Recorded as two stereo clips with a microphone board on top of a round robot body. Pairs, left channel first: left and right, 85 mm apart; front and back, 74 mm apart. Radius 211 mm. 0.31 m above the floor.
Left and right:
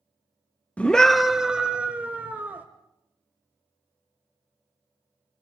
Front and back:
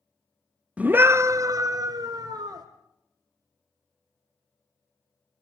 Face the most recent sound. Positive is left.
turn(degrees=-160)